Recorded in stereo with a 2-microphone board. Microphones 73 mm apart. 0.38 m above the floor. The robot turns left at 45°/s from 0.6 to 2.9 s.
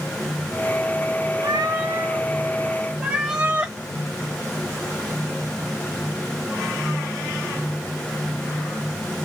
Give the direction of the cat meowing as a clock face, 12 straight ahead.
3 o'clock.